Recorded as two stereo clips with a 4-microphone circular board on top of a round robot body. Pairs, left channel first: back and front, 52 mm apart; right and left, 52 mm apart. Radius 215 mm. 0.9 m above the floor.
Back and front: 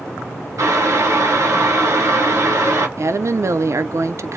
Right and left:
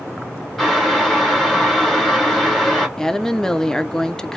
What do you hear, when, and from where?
0.6 s boiling: 5° left, 1.8 m
3.0 s a woman speaking: 10° right, 0.5 m